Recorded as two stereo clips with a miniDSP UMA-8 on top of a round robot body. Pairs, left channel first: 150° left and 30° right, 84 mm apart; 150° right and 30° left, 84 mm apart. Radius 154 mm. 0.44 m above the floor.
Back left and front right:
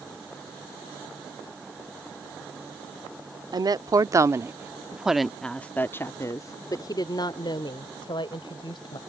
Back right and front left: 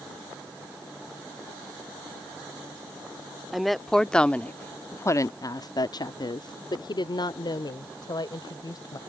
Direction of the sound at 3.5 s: 60° right.